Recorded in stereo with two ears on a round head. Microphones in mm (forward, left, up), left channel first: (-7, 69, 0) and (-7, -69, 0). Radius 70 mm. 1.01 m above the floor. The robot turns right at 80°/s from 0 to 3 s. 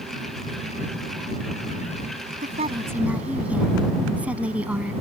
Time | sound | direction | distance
2.4 | a woman speaking | 55° right | ?